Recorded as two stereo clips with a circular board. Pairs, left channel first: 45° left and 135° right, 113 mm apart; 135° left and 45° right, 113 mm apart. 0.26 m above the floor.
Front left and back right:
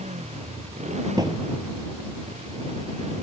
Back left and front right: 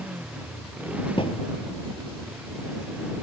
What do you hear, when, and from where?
0.0 s a motorcycle: 125° right
1.2 s a thud: 170° left